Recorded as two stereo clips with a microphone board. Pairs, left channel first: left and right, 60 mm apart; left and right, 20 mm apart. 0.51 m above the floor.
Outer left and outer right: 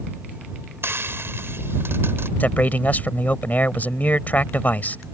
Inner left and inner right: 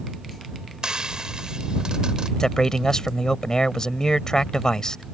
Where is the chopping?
I don't hear chopping.